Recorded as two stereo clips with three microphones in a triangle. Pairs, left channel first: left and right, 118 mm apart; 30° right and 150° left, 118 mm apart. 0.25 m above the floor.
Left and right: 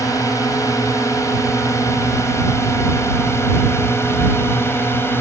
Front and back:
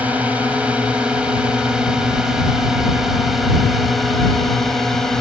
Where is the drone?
85° left; by 5.2 s 50° left.